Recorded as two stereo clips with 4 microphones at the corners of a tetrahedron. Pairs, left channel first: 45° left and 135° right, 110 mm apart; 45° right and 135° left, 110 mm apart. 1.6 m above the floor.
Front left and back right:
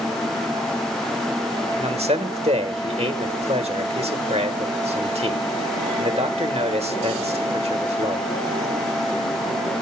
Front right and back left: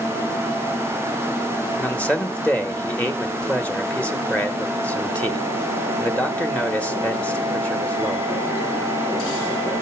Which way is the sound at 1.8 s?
120° right.